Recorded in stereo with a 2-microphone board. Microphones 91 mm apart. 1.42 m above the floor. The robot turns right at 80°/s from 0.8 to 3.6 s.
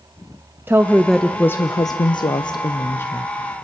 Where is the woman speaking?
30° right, 0.5 m; by 3.3 s 175° left, 0.5 m.